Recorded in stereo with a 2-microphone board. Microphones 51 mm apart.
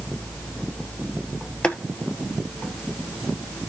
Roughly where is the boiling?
Left.